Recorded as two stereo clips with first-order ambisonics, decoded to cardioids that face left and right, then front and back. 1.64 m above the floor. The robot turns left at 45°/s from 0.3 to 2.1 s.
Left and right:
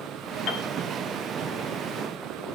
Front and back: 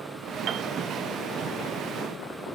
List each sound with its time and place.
0.5 s a piano: 135° left, 1.1 m; by 0.7 s 125° left, 1.1 m